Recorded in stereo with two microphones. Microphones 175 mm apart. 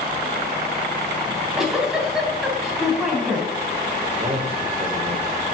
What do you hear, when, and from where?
1.3 s a giggle: 5° right (ahead or behind), 3.5 m
4.1 s a man speaking: 35° right (ahead or behind), 3 m